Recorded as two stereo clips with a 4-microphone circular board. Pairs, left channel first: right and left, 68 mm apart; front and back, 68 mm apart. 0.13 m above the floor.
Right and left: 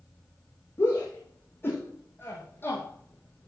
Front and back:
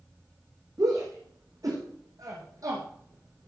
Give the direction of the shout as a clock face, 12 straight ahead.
5 o'clock.